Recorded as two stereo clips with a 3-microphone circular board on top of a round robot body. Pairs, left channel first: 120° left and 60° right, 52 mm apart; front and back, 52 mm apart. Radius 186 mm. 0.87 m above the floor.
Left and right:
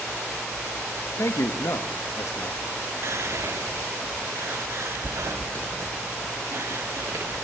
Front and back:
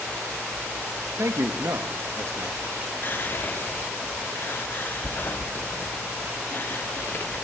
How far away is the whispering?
About 1.5 m.